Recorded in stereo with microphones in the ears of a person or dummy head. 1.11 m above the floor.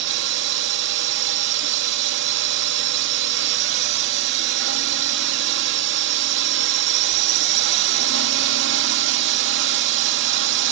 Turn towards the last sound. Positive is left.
turn(degrees=-60)  # may be behind; listen again after turning